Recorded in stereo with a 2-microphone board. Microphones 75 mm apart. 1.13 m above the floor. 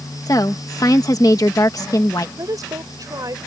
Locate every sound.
0.3 s a woman speaking: 50° left (ahead or behind)
2.4 s a woman speaking: 55° right (ahead or behind)